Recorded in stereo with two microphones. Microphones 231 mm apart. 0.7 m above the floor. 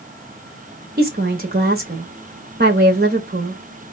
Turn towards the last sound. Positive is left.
turn(degrees=-40)  # may be behind; listen again after turning